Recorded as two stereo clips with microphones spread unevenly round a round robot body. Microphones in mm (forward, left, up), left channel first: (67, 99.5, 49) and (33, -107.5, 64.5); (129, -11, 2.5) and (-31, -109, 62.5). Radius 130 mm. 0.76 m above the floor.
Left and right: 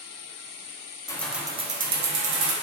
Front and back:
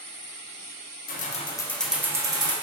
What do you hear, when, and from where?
1.1 s keys jangling: 10° left, 0.5 m; by 2.5 s 75° right, 0.8 m